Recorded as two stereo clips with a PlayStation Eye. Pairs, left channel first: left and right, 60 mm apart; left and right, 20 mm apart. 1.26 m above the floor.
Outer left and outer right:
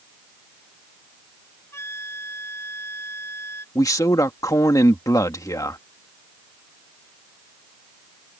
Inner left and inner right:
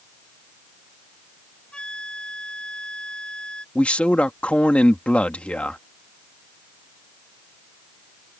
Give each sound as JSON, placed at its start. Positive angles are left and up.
{"t": 1.7, "sound": "a flute", "side_deg": 45}
{"t": 3.8, "sound": "a man speaking", "side_deg": 80}